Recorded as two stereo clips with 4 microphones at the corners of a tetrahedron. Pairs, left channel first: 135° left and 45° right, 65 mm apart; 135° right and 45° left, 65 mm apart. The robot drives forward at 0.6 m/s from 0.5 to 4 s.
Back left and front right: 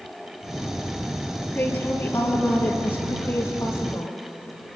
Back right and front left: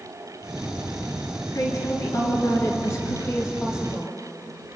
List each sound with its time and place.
1.5 s a woman speaking: 170° right, 3.5 m